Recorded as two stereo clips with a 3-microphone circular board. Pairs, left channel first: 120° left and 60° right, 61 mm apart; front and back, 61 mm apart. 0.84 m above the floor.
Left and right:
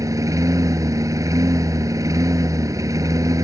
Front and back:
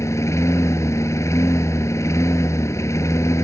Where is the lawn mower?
35° right.